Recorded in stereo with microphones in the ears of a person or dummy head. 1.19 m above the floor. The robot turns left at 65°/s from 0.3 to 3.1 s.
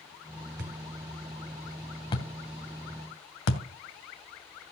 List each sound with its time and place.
0.6 s a thud: 65° right (ahead or behind), 2.5 m; by 3.6 s 75° left (ahead or behind), 2.5 m